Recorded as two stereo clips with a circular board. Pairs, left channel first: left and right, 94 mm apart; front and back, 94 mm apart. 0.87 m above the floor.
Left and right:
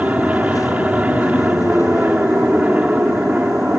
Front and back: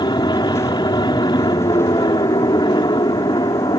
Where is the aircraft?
15° right.